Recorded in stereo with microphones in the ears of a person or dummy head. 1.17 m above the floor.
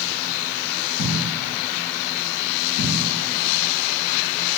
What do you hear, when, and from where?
1.0 s a thud: 55° left (ahead or behind), 0.9 m